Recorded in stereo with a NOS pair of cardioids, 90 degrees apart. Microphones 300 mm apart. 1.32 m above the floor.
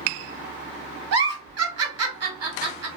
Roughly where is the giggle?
Ahead right.